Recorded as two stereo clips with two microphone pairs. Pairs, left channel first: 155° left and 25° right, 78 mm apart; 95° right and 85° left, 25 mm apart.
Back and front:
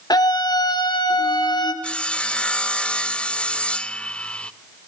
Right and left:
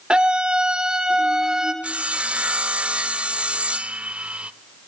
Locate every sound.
0.1 s a scream: 130° left, 2 m; by 1.7 s 150° left, 3 m
1.8 s sawing: 85° left, 0.6 m